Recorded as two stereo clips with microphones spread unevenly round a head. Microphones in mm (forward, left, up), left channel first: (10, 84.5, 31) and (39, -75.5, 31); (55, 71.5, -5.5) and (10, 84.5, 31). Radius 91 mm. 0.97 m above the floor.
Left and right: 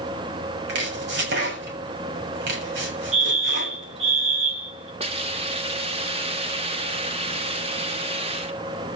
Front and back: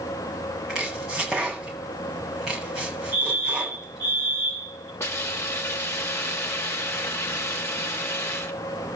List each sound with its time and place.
0.7 s chopping: 105° right, 7.5 m
3.1 s a fire alarm: 130° right, 3.5 m
5.0 s a hiss: 25° right, 2.5 m